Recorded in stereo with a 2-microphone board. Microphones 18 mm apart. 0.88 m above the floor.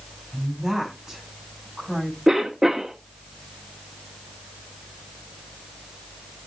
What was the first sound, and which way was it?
A woman speaking, 30° right (ahead or behind).